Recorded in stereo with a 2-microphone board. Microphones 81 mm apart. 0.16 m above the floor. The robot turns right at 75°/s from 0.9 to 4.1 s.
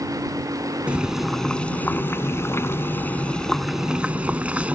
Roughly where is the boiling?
Ahead right.